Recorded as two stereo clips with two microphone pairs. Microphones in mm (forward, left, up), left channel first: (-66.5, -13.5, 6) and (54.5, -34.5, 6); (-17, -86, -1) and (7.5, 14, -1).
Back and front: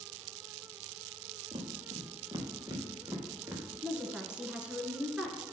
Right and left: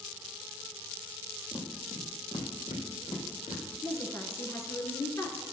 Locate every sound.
1.5 s footsteps: 50° right, 4 m; by 3.6 s 90° right, 4 m
3.8 s a woman speaking: 85° right, 1.8 m